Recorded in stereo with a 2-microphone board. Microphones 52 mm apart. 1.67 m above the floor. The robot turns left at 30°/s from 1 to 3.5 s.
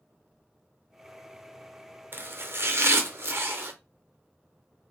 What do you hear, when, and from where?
2.1 s chopping: 60° right, 0.8 m; by 3.7 s 100° right, 0.8 m